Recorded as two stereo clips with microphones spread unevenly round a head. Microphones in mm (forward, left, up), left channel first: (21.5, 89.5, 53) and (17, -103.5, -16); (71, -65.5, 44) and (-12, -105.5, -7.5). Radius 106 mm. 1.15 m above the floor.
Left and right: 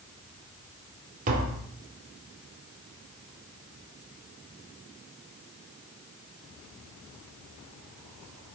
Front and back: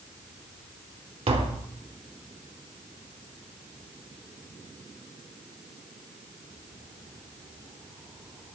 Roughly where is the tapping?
Behind right.